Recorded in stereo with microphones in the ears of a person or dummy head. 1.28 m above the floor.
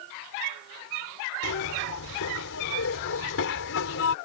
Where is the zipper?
70° left (ahead or behind).